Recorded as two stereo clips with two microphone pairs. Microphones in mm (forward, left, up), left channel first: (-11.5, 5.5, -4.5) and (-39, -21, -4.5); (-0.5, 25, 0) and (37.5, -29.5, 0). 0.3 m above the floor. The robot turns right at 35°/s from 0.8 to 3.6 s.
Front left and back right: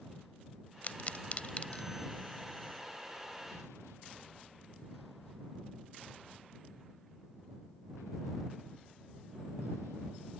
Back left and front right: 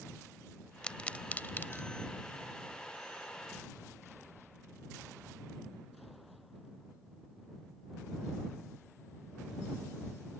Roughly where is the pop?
Ahead left.